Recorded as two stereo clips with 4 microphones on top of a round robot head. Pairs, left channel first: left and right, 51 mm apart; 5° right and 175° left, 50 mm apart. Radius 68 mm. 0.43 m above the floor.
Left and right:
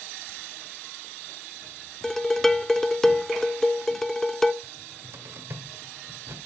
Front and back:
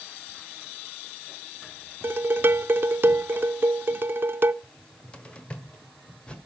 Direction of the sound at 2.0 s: 170° left.